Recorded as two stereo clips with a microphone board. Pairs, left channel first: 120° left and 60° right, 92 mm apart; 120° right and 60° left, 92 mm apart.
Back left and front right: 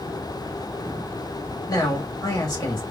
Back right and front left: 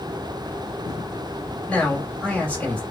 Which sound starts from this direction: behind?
A man speaking, at 1.7 s.